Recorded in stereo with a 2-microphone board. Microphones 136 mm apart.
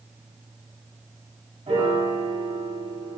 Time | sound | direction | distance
1.7 | a piano | 40° right (ahead or behind) | 1.8 m